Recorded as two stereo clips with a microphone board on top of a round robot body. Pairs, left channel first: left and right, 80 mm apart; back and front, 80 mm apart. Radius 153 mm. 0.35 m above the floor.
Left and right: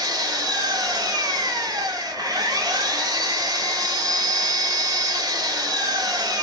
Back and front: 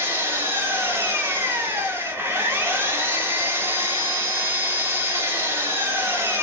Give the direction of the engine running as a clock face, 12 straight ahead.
2 o'clock.